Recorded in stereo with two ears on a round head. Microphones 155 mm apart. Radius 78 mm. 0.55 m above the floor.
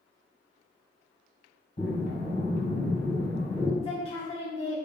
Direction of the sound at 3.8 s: 35° left (ahead or behind).